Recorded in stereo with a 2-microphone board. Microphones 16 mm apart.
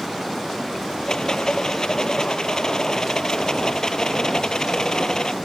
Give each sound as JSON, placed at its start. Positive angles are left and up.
{"t": 1.1, "sound": "a rattle", "side_deg": 50}